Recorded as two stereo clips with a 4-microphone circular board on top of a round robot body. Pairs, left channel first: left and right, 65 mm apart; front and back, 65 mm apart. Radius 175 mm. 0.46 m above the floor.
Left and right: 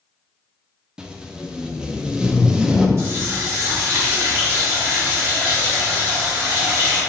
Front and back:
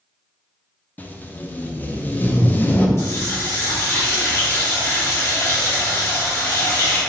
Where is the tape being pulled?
25° right, 0.6 m.